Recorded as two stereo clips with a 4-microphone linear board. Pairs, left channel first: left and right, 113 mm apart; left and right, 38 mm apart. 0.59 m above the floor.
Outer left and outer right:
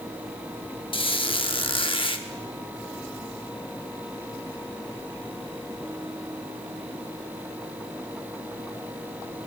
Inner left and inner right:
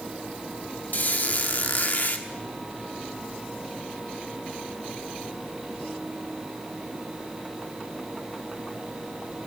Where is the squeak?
50° left (ahead or behind), 0.7 m.